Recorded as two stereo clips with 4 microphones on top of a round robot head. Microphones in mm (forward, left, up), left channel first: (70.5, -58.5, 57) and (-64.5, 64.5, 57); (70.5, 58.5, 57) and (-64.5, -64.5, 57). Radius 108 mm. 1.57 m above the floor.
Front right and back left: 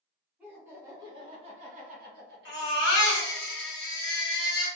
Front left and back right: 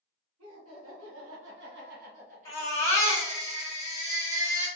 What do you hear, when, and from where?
0.4 s laughter: 140° right, 1.5 m; by 3.3 s 150° left, 1.3 m
2.5 s a baby crying: 30° right, 1.5 m